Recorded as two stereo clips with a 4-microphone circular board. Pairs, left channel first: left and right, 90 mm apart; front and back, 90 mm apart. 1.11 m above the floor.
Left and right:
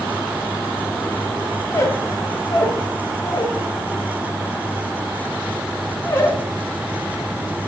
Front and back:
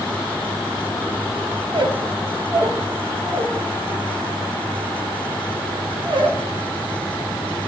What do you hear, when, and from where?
1.7 s a squeak: 150° left, 0.7 m